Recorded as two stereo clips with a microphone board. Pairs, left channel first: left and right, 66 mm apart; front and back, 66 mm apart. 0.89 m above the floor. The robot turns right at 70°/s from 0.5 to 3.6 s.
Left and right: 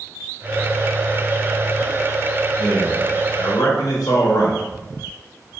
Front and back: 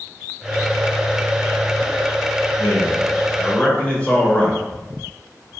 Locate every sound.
2.6 s a man speaking: straight ahead, 0.9 m; by 4.6 s 70° left, 0.9 m